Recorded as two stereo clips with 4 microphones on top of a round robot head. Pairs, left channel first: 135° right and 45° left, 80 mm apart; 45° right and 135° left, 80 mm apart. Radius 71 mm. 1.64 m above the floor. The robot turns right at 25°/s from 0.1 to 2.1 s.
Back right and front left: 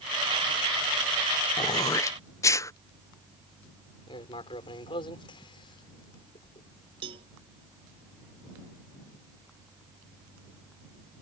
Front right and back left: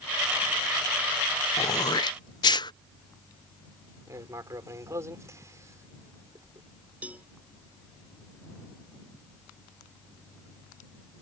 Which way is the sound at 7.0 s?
60° left.